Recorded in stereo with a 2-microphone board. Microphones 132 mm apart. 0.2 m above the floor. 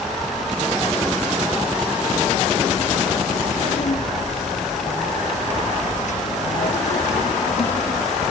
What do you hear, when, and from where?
3.3 s a child speaking: 70° left (ahead or behind), 8.5 m